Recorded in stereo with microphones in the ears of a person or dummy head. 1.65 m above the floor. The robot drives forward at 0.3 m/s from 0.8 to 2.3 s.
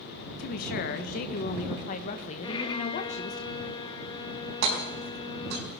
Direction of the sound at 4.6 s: 65° right (ahead or behind).